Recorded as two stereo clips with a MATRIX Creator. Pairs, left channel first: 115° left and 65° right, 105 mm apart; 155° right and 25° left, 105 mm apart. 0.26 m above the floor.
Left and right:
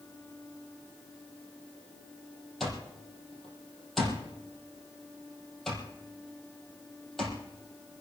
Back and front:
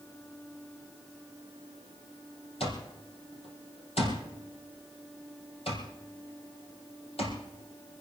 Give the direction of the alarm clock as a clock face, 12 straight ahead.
5 o'clock.